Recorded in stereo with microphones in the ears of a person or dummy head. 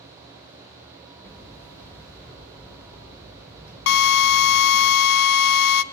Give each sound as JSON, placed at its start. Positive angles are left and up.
{"t": 1.2, "sound": "hammering", "side_deg": 15, "distance_m": 6.5}
{"t": 3.9, "sound": "a drill", "side_deg": 65, "distance_m": 0.6}